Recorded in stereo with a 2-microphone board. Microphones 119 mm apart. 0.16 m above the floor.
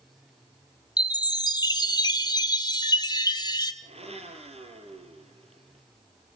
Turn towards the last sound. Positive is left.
turn(degrees=-60)  # may be behind; listen again after turning